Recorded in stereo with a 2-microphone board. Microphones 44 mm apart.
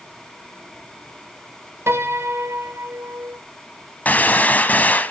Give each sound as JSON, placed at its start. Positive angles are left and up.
{"t": 1.9, "sound": "a piano", "side_deg": -70, "distance_m": 1.2}
{"t": 4.0, "sound": "a gunshot", "side_deg": 40, "distance_m": 1.0}